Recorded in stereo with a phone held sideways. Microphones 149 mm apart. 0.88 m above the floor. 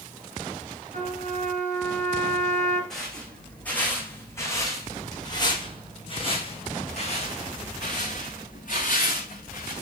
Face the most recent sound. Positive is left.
turn(degrees=65)  # may be behind; listen again after turning